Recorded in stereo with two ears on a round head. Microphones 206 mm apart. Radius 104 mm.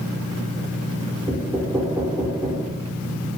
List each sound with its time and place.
1.3 s knocking: 5° right (ahead or behind), 3 m